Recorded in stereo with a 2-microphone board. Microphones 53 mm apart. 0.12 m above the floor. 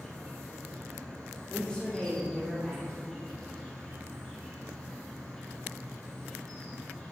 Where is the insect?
15° left (ahead or behind), 3 m.